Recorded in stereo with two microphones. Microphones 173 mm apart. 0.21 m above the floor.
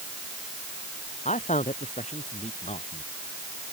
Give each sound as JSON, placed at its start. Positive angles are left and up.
{"t": 1.2, "sound": "a man speaking", "side_deg": 45}